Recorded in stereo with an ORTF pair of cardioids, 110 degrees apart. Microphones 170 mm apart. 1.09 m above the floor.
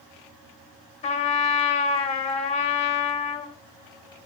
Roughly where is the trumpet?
Ahead left.